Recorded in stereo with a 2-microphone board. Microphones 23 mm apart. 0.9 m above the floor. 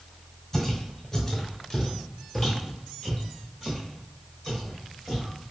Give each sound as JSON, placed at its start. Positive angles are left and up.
{"t": 0.5, "sound": "footsteps", "side_deg": 20, "distance_m": 1.1}